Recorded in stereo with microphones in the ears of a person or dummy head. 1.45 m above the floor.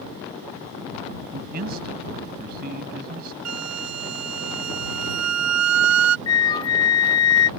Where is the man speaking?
50° right (ahead or behind).